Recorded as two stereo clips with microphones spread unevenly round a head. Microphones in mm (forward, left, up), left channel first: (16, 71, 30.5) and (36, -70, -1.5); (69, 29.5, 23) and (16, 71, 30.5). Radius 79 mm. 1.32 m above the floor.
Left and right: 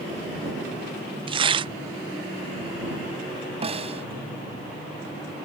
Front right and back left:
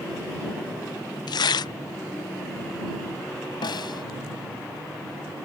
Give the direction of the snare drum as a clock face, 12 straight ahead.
1 o'clock.